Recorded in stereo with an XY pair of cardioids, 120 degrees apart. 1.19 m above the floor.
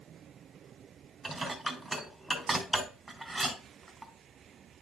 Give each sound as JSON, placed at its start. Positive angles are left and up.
{"t": 1.2, "sound": "dishes clattering", "azimuth_deg": -15, "distance_m": 3.5}